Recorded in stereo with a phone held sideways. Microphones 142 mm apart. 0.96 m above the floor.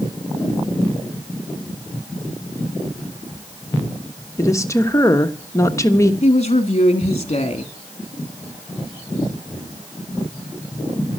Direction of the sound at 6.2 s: 45° left (ahead or behind).